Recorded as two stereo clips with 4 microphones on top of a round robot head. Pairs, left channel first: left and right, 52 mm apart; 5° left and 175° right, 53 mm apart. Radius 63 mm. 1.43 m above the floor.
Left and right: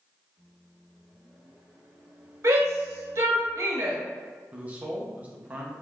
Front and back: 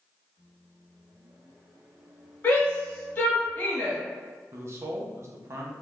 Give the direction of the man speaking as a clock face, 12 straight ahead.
5 o'clock.